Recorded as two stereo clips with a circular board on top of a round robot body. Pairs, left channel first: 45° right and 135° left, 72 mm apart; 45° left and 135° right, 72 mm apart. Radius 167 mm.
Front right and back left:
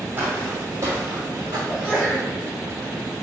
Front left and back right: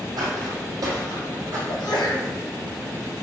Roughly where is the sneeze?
Ahead left.